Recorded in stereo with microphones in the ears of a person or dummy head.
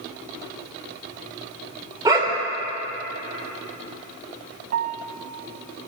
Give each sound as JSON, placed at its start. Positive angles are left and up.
{"t": 2.0, "sound": "a dog barking", "side_deg": -10, "distance_m": 1.9}
{"t": 4.7, "sound": "a piano", "side_deg": -55, "distance_m": 0.5}